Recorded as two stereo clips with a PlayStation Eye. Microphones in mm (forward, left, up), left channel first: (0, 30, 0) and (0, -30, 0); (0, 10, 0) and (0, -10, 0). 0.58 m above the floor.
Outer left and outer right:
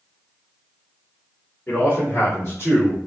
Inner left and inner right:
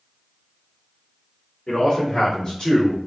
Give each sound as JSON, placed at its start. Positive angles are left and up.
{"t": 1.7, "sound": "a man speaking", "side_deg": 35, "distance_m": 1.6}